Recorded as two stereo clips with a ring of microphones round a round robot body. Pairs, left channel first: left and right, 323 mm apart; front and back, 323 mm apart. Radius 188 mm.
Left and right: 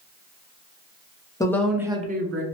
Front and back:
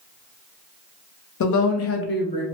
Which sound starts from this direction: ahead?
A woman speaking, at 1.4 s.